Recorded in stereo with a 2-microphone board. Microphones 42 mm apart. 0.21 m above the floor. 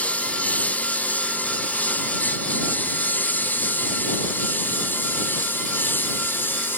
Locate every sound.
0.0 s a lawn mower: 35° left (ahead or behind); by 6.8 s 55° left (ahead or behind)